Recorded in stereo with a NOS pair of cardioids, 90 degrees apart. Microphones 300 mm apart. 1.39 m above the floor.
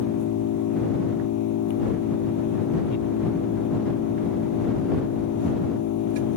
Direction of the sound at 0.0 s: 70° left.